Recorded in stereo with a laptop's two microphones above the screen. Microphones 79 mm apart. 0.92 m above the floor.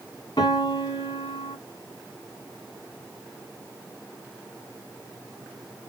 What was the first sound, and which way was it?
A piano, 60° left (ahead or behind).